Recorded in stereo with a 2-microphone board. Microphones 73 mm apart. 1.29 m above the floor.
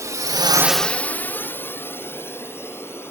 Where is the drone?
45° right (ahead or behind); by 3.1 s 35° left (ahead or behind).